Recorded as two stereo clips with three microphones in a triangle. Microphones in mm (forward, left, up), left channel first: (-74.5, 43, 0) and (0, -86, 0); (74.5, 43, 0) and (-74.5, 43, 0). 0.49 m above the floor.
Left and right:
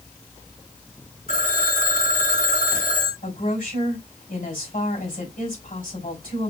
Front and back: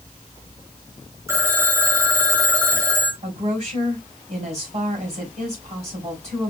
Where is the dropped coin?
I don't hear a dropped coin.